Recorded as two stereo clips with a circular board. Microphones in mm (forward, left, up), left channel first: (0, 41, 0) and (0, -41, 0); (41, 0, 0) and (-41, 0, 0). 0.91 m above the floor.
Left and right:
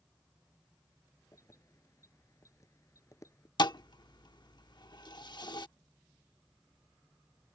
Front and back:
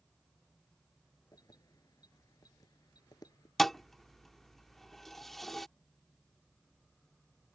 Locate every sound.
1.3 s keys jangling: 40° left
3.6 s a thud: 85° left